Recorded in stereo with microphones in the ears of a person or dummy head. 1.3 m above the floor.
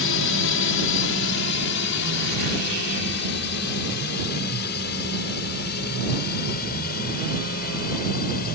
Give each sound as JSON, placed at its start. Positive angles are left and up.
{"t": 0.0, "sound": "a drone", "side_deg": 65}